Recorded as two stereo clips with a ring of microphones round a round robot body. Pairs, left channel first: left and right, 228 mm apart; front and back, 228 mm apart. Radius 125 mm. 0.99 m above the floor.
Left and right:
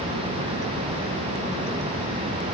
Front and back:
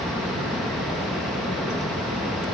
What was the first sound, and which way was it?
Only background noise.